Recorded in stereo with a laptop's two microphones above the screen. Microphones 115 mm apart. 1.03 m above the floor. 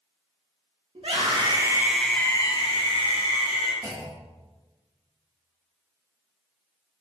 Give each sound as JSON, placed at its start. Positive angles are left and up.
{"t": 0.9, "sound": "a scream", "side_deg": -55, "distance_m": 1.0}
{"t": 3.8, "sound": "a clunk", "side_deg": -25, "distance_m": 0.9}